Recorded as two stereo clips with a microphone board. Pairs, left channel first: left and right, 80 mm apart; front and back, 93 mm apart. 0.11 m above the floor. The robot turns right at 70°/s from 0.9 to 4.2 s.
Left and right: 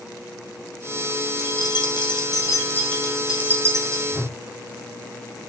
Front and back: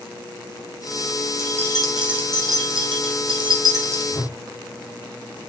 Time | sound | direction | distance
1.4 | keys jangling | 55° left | 3.5 m
4.1 | a whoosh | 35° right | 5.5 m